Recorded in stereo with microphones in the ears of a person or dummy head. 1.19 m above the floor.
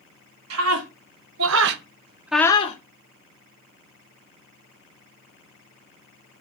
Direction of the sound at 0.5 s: 80° right.